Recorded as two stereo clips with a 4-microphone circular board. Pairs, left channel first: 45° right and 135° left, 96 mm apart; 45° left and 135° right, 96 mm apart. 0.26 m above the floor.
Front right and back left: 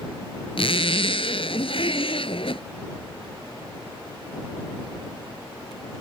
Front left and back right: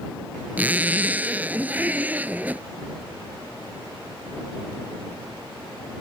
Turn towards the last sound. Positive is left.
turn(degrees=-60)